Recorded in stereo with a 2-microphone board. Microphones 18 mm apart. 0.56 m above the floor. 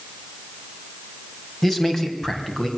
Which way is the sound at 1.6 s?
15° left (ahead or behind).